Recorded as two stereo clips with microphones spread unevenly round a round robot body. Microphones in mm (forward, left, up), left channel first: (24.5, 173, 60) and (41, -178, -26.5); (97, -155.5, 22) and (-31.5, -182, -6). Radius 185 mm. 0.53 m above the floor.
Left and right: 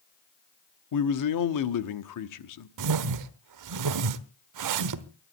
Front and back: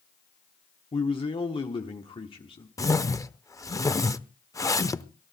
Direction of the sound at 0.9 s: 70° left.